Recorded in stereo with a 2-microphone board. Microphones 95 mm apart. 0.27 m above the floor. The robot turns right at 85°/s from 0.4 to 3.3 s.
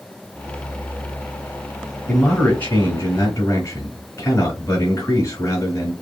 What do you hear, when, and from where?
2.1 s a man speaking: straight ahead, 1.4 m; by 5.9 s 105° left, 1.4 m